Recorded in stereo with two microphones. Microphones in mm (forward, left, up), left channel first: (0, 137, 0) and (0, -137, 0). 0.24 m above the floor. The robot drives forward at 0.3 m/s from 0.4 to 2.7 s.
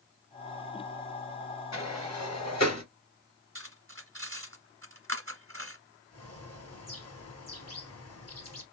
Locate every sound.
1.7 s a sliding door: 70° left (ahead or behind), 2.5 m; by 2.8 s 75° left (ahead or behind), 2.5 m
3.5 s cutlery clinking: 50° right (ahead or behind), 1.2 m
6.1 s a bird: 60° left (ahead or behind), 1.7 m